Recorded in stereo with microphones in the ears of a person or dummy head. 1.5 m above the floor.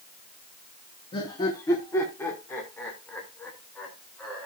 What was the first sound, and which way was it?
Laughter, 30° left (ahead or behind).